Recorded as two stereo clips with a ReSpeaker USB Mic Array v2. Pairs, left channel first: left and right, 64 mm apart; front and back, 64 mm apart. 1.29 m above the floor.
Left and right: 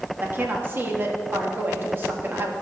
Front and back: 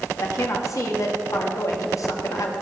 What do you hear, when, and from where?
0.2 s a woman speaking: 35° right, 1.7 m